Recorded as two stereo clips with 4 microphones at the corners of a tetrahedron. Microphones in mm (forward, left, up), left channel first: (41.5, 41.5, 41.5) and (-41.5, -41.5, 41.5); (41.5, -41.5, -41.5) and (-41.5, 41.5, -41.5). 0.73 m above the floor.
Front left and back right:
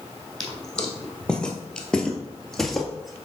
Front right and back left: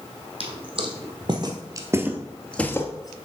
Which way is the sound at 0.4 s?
125° left.